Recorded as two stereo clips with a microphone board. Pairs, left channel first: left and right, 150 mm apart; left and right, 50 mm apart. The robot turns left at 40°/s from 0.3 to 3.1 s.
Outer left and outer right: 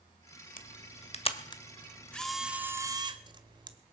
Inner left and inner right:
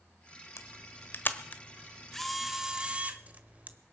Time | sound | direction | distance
0.6 | a camera shutter | 65° left (ahead or behind) | 1.2 m